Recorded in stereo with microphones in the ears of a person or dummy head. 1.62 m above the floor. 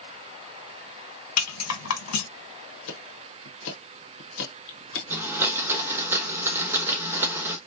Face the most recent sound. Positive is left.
turn(degrees=-10)  # may be behind; listen again after turning